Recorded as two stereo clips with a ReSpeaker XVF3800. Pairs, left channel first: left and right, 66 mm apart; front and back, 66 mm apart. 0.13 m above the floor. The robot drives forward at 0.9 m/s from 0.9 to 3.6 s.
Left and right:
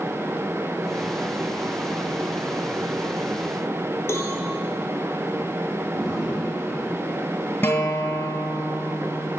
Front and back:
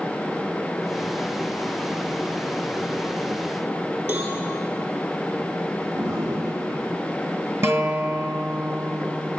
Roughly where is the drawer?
Behind.